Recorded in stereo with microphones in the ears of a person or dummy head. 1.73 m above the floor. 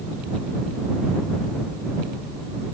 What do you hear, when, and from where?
Only background noise.